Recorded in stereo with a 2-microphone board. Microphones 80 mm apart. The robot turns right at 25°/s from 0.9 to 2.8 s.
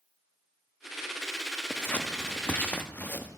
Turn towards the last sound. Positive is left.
turn(degrees=20)  # may be behind; listen again after turning